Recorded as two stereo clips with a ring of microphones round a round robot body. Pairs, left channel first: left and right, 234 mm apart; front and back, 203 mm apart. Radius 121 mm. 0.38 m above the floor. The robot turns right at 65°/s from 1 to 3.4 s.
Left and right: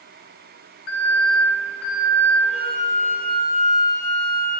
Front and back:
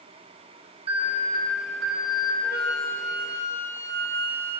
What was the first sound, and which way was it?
An alarm, 120° left.